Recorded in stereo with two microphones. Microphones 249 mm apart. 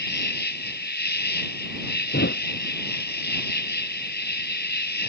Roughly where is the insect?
Left.